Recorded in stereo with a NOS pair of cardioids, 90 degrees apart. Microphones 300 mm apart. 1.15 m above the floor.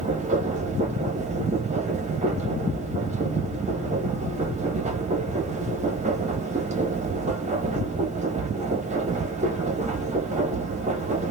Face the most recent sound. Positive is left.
turn(degrees=-25)